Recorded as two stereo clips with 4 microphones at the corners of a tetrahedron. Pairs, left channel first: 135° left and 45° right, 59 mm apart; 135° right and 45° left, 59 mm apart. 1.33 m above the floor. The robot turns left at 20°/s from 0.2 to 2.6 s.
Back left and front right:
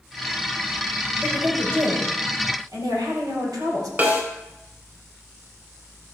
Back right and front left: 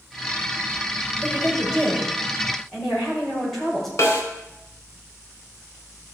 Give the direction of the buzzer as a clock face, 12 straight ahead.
No buzzer in this recording.